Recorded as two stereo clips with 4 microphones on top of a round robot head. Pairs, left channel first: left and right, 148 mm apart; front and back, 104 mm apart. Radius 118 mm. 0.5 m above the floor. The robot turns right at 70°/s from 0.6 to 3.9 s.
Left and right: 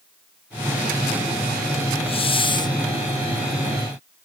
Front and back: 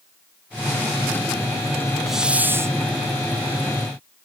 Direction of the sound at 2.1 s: 90° left.